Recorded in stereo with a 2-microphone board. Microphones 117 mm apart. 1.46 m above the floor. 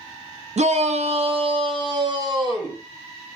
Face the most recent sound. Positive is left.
turn(degrees=-35)  # may be behind; listen again after turning